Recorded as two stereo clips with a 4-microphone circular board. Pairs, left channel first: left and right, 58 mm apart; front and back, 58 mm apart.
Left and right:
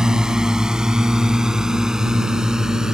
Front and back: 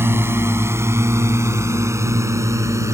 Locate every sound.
0.0 s a drone: 165° right; by 2.9 s 170° right